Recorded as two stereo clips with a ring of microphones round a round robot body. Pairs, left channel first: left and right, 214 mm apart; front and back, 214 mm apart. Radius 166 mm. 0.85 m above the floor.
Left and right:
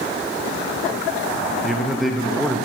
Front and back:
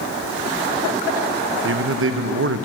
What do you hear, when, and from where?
1.6 s a man speaking: straight behind, 0.6 m